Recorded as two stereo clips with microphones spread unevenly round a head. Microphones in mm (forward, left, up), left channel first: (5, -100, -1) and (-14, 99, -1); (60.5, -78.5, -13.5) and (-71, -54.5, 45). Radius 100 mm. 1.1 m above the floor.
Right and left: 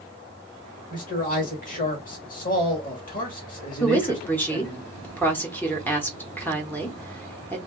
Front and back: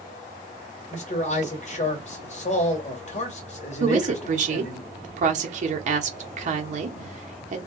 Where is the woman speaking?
160° right, 0.8 m.